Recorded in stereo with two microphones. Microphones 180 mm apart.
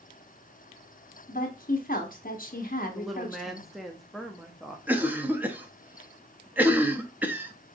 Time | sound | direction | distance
1.3 | a woman speaking | 50° left (ahead or behind) | 1.0 m
3.0 | a woman speaking | centre (ahead or behind) | 0.6 m
4.9 | a cough | 10° right (ahead or behind) | 0.6 m